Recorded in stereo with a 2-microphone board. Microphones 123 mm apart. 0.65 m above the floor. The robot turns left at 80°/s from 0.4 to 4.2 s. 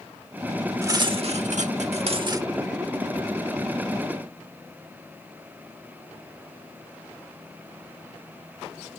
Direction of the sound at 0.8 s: 25° right.